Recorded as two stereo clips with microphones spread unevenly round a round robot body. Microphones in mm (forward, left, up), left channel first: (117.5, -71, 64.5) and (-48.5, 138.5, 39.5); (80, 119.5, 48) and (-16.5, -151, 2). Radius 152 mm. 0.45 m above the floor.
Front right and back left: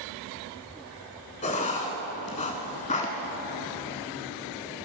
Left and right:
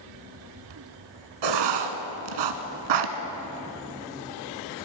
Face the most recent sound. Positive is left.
turn(degrees=-120)